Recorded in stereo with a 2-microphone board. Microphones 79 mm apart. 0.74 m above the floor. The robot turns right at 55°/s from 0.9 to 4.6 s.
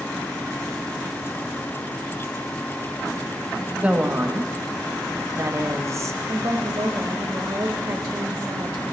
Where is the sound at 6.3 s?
35° right (ahead or behind), 1.1 m.